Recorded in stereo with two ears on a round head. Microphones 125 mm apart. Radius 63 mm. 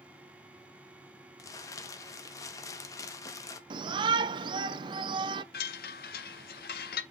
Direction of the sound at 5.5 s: 70° left (ahead or behind).